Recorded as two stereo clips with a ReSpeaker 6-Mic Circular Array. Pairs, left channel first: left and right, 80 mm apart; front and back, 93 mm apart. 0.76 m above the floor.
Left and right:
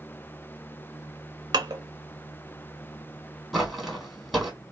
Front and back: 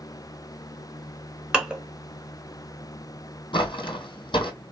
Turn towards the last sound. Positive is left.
turn(degrees=5)